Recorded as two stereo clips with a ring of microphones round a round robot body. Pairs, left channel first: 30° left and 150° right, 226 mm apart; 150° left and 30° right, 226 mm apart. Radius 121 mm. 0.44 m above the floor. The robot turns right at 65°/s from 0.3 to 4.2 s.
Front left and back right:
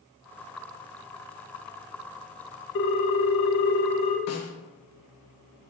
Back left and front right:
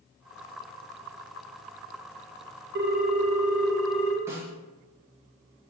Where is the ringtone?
5° left, 0.5 m; by 4.2 s 100° left, 0.5 m.